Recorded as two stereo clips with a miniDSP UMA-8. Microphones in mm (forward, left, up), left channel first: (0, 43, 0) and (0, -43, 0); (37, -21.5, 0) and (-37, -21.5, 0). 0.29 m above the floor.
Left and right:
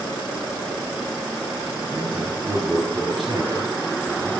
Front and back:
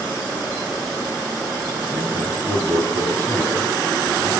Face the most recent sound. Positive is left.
turn(degrees=-55)